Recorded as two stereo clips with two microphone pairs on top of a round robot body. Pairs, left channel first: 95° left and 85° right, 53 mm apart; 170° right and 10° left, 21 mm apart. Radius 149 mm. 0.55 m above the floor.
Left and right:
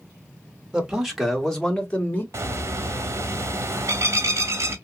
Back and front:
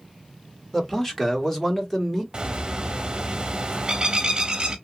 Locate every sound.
0.7 s a man speaking: 120° right, 1.3 m; by 2.2 s 130° left, 1.4 m
2.3 s a bird: 45° right, 0.5 m